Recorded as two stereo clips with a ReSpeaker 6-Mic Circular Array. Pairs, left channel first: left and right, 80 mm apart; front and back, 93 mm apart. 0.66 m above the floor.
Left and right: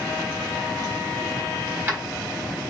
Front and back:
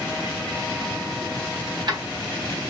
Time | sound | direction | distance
1.7 | keys jangling | 150° right | 1.3 m